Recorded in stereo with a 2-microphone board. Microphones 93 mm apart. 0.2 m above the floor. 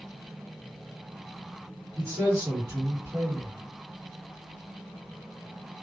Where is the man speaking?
30° right (ahead or behind), 1.9 m.